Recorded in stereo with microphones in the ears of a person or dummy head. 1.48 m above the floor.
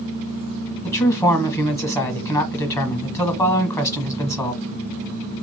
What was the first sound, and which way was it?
A man speaking, 20° left (ahead or behind).